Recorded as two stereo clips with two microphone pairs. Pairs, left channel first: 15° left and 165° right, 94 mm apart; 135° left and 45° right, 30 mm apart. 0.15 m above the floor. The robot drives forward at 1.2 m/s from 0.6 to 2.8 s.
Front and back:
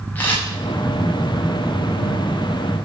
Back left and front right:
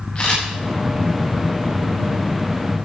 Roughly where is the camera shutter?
Left.